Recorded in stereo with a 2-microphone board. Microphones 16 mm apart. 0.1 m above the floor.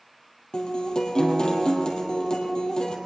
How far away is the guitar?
About 2.5 m.